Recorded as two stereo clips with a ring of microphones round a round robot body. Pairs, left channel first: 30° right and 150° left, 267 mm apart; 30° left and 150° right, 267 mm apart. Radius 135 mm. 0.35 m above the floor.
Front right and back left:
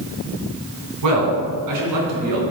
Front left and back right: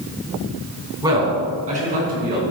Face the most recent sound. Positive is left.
turn(degrees=155)